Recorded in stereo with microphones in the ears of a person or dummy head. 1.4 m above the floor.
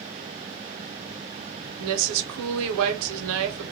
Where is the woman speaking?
80° right, 0.7 m.